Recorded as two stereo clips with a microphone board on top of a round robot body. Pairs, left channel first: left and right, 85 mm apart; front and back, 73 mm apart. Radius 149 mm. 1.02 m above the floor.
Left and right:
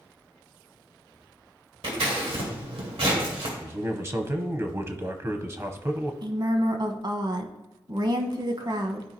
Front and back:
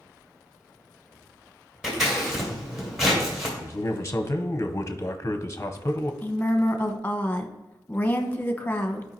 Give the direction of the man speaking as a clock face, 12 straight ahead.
2 o'clock.